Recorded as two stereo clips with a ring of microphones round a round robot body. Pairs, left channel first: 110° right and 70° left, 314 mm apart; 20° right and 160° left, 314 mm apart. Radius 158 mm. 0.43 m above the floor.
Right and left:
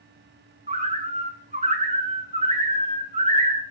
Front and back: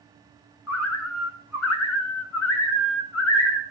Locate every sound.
0.7 s a bird: 5° left, 1.7 m